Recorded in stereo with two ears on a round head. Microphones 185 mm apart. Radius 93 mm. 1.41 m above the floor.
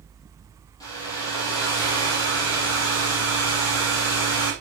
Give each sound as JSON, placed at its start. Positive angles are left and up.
{"t": 0.8, "sound": "a hair dryer", "side_deg": 20, "distance_m": 8.0}